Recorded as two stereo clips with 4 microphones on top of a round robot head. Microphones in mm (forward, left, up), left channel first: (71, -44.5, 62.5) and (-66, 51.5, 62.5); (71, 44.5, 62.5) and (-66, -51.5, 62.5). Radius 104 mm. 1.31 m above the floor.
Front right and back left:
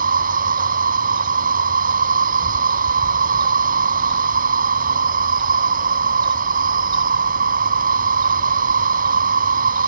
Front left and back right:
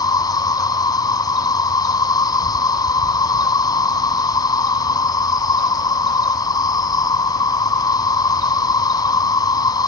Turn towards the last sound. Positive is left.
turn(degrees=105)